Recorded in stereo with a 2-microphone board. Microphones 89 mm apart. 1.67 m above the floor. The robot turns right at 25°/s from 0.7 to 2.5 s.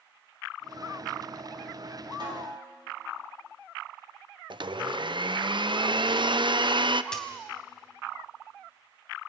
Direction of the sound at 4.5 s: 60° right (ahead or behind).